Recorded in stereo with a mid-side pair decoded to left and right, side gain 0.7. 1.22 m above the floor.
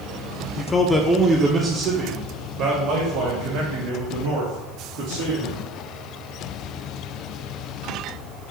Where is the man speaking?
25° left, 0.6 m; by 5.6 s 80° right, 2.5 m.